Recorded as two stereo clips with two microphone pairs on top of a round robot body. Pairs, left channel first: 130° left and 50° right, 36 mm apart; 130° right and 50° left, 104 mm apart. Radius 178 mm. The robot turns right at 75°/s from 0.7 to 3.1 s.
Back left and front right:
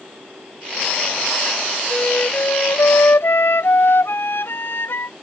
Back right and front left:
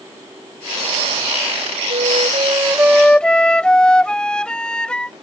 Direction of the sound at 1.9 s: 60° left.